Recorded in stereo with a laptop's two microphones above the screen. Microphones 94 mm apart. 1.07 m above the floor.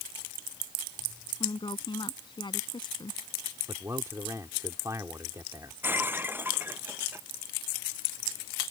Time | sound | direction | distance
1.4 | a woman speaking | 55° left (ahead or behind) | ?
3.7 | a man speaking | 35° right (ahead or behind) | ?
5.8 | breaking glass | 20° right (ahead or behind) | ?